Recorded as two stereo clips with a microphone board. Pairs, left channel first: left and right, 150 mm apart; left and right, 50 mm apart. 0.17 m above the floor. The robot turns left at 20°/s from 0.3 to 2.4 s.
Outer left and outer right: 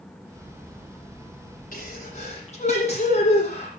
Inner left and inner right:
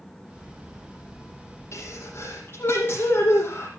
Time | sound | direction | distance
1.7 | a sneeze | 60° left (ahead or behind) | 8.5 m